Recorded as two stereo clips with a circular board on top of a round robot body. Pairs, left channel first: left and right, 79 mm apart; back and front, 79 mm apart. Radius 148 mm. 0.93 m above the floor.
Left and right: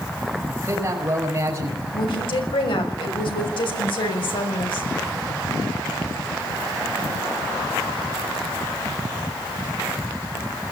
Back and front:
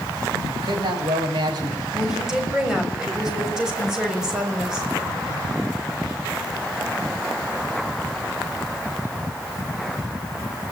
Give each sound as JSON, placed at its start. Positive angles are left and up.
{"t": 0.5, "sound": "a man speaking", "azimuth_deg": -30, "distance_m": 7.0}
{"t": 1.9, "sound": "a woman speaking", "azimuth_deg": 80, "distance_m": 6.5}